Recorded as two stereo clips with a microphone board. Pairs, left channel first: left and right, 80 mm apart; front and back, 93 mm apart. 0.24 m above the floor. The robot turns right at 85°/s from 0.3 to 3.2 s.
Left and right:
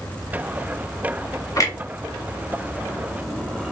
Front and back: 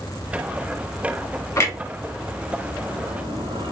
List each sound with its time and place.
1.6 s a clunk: 55° left, 1.0 m; by 3.7 s 170° right, 1.0 m